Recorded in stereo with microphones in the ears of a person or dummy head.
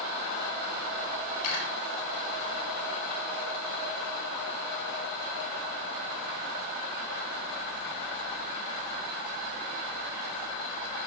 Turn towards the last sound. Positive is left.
turn(degrees=55)  # may be behind; listen again after turning